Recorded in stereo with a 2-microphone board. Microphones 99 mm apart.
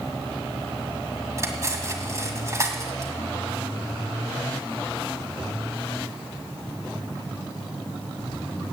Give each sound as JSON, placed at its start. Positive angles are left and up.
{"t": 1.4, "sound": "cutlery clinking", "side_deg": -30, "distance_m": 1.9}